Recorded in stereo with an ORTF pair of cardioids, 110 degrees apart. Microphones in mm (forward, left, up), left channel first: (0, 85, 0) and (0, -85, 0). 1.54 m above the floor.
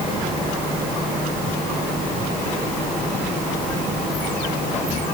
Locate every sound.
Only background noise.